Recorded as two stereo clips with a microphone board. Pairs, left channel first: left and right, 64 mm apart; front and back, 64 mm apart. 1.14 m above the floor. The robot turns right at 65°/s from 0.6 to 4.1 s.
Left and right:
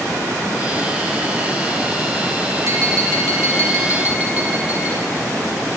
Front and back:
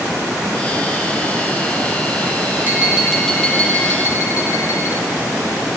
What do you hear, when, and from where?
2.6 s tapping: 120° right, 6.5 m; by 4.9 s 25° right, 6.5 m